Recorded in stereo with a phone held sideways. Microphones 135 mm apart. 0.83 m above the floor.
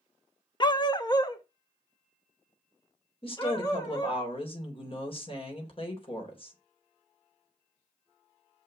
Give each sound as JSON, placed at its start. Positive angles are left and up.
{"t": 0.6, "sound": "a dog barking", "side_deg": 35, "distance_m": 0.7}
{"t": 3.2, "sound": "a woman speaking", "side_deg": 45, "distance_m": 3.5}